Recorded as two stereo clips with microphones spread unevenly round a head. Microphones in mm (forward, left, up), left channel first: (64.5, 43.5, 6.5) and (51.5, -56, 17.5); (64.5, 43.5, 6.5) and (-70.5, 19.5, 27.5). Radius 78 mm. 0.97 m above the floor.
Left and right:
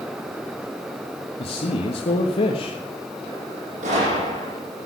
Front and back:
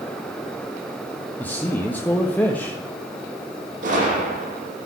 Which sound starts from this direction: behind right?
A gunshot, at 3.8 s.